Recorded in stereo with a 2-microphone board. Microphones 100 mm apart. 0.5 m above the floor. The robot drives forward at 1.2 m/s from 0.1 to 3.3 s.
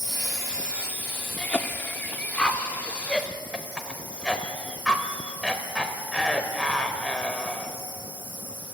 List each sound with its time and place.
0.0 s an insect: 50° right (ahead or behind), 1.2 m; by 8.8 s 10° right (ahead or behind), 4.5 m
1.4 s a cough: 15° left (ahead or behind), 1.1 m; by 7.8 s 5° left (ahead or behind), 2 m